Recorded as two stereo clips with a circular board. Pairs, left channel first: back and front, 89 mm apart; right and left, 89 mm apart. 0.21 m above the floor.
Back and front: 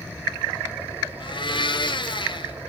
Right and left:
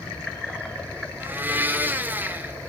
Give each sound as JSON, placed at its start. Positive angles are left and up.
{"t": 1.2, "sound": "a blender", "azimuth_deg": 160, "distance_m": 0.9}